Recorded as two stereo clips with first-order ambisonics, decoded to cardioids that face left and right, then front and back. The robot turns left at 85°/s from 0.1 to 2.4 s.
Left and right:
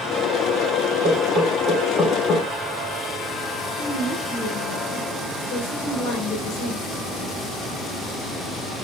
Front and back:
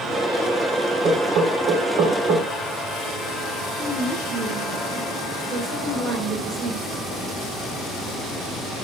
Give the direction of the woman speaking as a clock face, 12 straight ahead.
8 o'clock.